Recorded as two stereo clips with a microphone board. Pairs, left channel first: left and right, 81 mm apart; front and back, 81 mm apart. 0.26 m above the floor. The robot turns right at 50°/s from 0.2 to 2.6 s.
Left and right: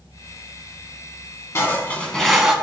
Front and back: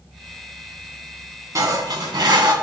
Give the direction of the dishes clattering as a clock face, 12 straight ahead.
7 o'clock.